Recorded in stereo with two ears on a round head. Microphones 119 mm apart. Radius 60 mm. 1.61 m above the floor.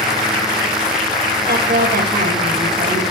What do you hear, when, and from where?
1.5 s a woman speaking: 65° right (ahead or behind), 2.5 m